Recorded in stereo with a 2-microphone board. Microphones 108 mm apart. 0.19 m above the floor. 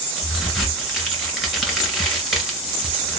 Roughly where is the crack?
Centre.